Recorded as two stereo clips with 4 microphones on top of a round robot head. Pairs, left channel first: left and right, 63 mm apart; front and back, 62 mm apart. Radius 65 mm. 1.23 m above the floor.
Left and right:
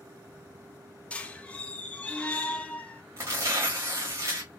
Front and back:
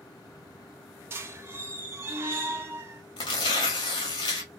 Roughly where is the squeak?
Behind left.